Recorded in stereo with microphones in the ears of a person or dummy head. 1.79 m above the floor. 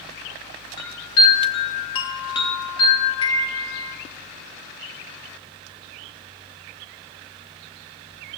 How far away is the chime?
About 0.9 m.